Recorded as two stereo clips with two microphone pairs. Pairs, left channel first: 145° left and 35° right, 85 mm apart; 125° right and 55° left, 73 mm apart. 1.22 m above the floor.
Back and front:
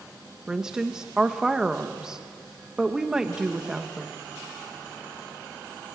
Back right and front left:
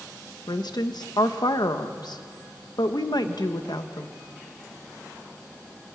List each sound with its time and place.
0.5 s a woman speaking: 115° right, 1.2 m